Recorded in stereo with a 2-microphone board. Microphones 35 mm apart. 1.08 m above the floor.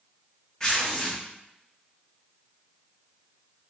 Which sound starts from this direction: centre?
Tearing paper, at 0.6 s.